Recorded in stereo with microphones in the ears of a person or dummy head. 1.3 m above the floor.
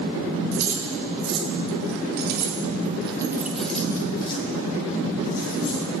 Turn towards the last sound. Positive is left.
turn(degrees=45)  # may be behind; listen again after turning